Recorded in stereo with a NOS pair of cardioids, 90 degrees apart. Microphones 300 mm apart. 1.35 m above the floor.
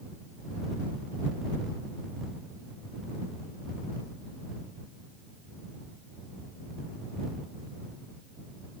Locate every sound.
Only background noise.